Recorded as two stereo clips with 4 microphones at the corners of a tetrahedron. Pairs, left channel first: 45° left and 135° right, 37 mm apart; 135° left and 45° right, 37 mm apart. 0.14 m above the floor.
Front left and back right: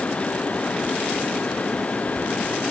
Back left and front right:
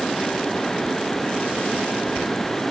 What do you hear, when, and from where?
Only background noise.